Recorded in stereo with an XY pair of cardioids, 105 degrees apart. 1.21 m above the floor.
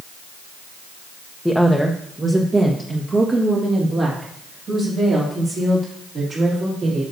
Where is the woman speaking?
5° left, 0.7 m; by 7.0 s 55° right, 3.5 m.